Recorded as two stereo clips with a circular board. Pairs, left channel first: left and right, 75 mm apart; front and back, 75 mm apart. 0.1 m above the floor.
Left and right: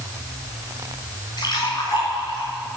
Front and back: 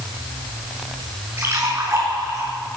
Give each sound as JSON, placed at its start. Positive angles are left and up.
{"t": 1.4, "sound": "a splash", "azimuth_deg": 120, "distance_m": 6.0}